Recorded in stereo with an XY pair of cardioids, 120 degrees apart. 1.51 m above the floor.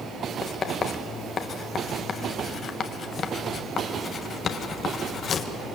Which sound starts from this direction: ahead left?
Writing, at 0.4 s.